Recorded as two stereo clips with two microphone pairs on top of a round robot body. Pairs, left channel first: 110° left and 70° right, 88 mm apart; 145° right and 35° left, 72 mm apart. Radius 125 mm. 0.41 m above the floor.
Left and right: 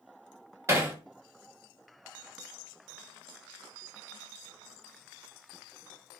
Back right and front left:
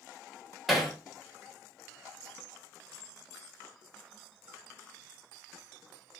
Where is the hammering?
65° right, 1.1 m.